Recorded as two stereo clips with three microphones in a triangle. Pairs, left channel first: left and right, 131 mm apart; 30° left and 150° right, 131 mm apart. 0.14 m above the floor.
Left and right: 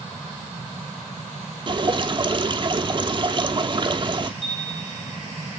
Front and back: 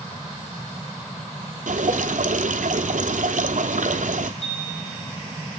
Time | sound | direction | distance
1.7 | dripping | 140° right | 0.6 m
4.4 | a chime | 65° left | 6.5 m